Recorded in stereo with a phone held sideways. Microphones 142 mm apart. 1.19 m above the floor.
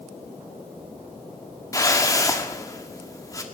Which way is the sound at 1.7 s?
25° left (ahead or behind).